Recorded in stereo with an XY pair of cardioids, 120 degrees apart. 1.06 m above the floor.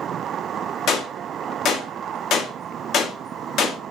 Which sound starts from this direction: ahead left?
A gunshot, at 0.9 s.